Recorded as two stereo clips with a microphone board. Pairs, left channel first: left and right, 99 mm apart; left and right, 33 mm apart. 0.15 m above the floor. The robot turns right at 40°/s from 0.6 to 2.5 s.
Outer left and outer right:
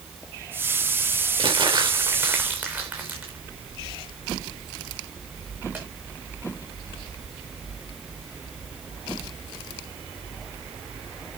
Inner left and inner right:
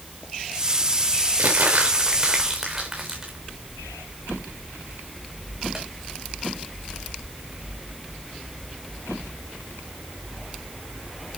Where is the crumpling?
60° right (ahead or behind), 4 m; by 5.8 s 15° right (ahead or behind), 4 m.